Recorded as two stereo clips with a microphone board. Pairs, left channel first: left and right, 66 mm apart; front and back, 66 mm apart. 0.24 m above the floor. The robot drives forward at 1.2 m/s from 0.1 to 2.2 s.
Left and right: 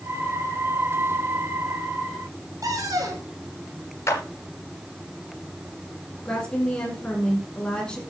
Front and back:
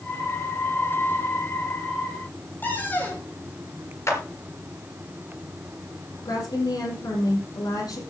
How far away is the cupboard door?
About 4.5 m.